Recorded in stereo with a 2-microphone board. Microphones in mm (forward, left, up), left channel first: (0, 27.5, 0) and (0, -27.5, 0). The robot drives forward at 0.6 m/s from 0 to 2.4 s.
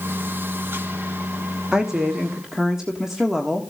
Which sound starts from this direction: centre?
A woman speaking, at 1.7 s.